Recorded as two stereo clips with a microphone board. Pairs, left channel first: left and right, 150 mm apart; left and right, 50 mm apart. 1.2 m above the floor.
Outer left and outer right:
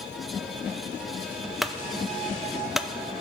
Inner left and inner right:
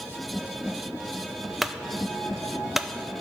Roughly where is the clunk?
Centre.